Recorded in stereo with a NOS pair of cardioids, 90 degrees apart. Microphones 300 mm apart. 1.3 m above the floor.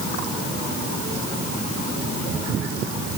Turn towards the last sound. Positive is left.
No sound to turn to.